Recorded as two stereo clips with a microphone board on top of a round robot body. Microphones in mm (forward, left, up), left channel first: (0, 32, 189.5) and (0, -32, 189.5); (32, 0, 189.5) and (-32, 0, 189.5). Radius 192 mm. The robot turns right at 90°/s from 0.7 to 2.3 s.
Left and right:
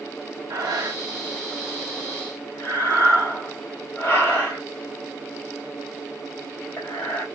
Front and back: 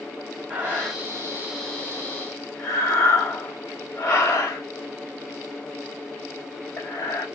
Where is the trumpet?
No trumpet in this recording.